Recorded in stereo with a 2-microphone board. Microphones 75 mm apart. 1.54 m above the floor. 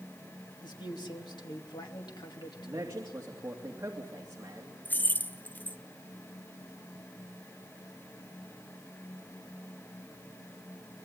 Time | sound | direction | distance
0.6 | a man speaking | 85° left | 2.5 m
2.6 | a man speaking | 45° right (ahead or behind) | 2.5 m
4.8 | keys jangling | 25° left (ahead or behind) | 0.6 m